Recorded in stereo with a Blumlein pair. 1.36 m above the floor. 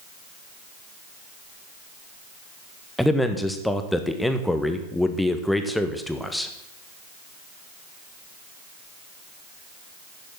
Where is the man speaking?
5° left, 1.5 m.